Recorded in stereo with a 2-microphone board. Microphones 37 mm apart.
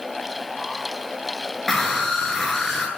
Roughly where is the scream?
Centre.